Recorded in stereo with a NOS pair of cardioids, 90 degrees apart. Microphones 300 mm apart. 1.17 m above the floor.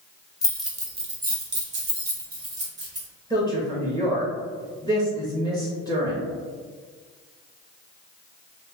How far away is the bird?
I don't hear a bird.